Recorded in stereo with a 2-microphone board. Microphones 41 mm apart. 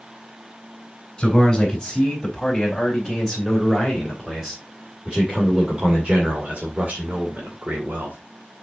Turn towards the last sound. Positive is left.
turn(degrees=-60)  # may be behind; listen again after turning